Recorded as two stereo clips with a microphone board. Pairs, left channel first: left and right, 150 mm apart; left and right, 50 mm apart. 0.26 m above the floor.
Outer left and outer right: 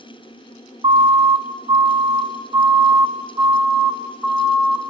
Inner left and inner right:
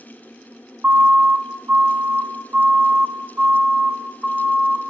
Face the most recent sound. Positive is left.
turn(degrees=0)  # may be behind; listen again after turning